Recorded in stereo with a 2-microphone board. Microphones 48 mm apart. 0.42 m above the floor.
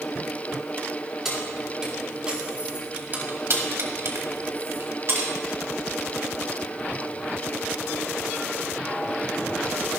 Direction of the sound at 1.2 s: 10° right (ahead or behind).